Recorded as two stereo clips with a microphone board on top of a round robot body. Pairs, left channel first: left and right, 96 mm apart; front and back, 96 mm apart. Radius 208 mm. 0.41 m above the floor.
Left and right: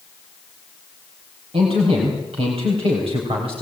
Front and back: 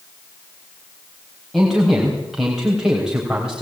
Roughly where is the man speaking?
Right.